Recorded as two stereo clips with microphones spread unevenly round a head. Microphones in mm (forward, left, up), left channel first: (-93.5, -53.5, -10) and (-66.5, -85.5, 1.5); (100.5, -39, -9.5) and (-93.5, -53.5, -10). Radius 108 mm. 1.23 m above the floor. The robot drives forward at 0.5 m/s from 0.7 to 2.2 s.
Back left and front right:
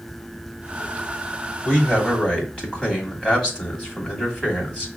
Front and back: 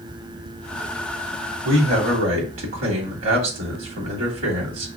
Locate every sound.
1.6 s a man speaking: 160° right, 2.5 m; by 4.9 s 165° right, 3 m